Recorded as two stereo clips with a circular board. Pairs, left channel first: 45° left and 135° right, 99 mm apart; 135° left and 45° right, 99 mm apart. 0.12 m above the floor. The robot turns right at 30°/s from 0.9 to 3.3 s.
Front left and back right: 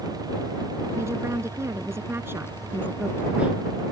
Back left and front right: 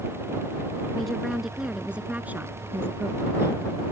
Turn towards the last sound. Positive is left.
turn(degrees=-70)